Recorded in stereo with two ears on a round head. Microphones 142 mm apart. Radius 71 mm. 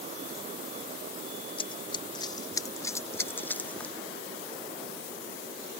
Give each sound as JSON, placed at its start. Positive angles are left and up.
{"t": 1.6, "sound": "running footsteps", "side_deg": 35}